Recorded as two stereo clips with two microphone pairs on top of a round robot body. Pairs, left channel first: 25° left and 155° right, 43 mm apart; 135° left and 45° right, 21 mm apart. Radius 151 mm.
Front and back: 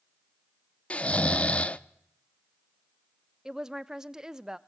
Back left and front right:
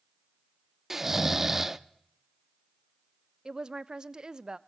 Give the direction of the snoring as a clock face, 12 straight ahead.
11 o'clock.